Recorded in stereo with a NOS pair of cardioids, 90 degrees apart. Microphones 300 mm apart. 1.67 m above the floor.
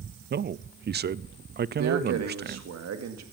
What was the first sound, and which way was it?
A man speaking, 35° right.